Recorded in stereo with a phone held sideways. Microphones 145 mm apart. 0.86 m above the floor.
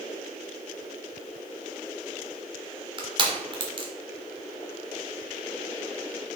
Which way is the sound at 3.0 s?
35° right (ahead or behind).